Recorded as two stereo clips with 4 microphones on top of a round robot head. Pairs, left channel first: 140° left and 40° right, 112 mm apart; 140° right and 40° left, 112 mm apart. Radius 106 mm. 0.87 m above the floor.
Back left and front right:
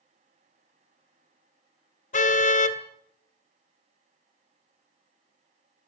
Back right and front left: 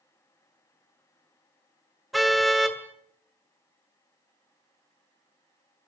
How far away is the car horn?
About 2.5 m.